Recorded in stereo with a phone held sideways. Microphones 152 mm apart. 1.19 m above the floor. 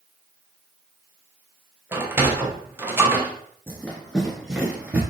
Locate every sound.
1.9 s a sliding door: 15° right (ahead or behind), 0.6 m
3.7 s running footsteps: 10° left (ahead or behind), 1.2 m; by 5.0 s 10° right (ahead or behind), 1.2 m